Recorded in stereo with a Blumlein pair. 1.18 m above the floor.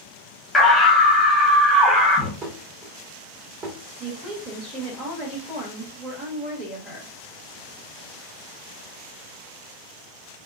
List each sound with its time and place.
0.5 s a scream: 5° left, 1.3 m
2.4 s dishes clattering: 30° right, 1.5 m
4.0 s a woman speaking: 5° right, 1.2 m